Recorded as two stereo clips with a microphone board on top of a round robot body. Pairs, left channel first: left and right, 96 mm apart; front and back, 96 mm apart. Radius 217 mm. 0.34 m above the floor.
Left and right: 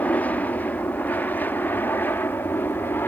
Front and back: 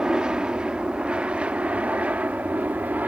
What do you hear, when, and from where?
0.0 s an aircraft: 115° left; by 3.1 s 125° left